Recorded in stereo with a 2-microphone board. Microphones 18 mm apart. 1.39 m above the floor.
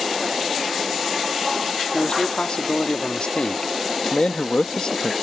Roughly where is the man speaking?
Left.